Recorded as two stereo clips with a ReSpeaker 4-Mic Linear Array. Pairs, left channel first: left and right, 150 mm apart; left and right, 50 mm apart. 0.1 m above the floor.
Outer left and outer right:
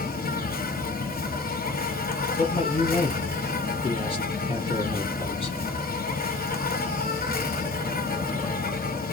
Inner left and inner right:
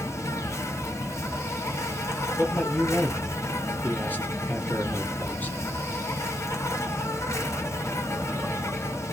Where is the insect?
70° left (ahead or behind), 0.9 m.